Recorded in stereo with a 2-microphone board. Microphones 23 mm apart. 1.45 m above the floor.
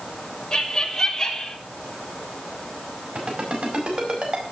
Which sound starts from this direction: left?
Laughter, at 0.5 s.